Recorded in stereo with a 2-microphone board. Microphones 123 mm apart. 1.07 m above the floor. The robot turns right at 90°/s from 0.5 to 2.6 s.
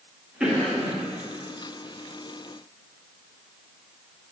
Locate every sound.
0.4 s a cough: 5° right, 1.6 m; by 0.9 s 30° left, 1.6 m